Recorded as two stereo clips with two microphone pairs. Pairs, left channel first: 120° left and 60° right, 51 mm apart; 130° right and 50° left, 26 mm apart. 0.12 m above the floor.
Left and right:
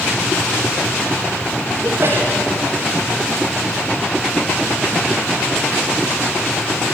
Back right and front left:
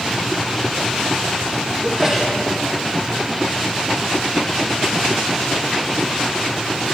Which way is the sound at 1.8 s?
20° right.